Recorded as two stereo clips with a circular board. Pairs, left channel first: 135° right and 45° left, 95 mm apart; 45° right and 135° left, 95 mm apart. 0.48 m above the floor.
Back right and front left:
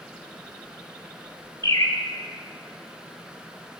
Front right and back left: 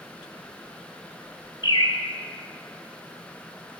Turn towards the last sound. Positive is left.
turn(degrees=-85)